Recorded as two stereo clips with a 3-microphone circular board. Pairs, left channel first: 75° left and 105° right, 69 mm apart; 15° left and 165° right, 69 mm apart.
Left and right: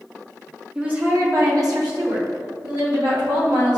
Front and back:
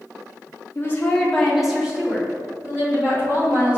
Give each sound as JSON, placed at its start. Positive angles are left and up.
{"t": 0.8, "sound": "a woman speaking", "azimuth_deg": -30, "distance_m": 0.5}